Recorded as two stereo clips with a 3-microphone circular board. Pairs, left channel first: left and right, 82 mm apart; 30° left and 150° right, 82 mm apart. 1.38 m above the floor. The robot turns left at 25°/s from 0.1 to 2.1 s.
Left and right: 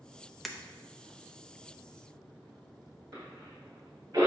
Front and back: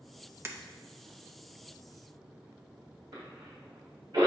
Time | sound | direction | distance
0.5 | breaking glass | straight behind | 0.7 m
3.1 | a cough | 140° right | 2 m